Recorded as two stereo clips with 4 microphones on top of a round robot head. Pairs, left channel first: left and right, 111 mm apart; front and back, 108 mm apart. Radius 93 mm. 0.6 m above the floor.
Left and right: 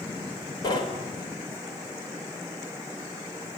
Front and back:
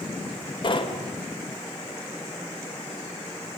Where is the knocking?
35° left, 2.5 m.